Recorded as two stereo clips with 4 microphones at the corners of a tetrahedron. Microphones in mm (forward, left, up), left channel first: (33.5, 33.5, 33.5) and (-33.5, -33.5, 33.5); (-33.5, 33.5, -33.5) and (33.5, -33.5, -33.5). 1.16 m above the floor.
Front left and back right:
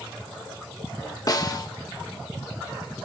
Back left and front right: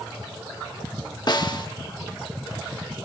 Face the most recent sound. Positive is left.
turn(degrees=95)